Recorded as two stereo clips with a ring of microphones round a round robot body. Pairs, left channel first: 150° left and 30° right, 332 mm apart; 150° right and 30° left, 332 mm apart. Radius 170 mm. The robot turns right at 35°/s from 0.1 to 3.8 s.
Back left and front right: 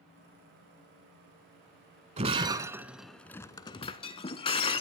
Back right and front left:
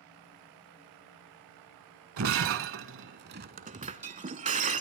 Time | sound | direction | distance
2.2 | breaking glass | 30° left | 0.7 m